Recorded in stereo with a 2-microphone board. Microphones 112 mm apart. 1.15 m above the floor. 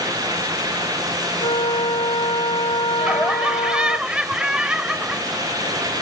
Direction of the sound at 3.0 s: 10° right (ahead or behind).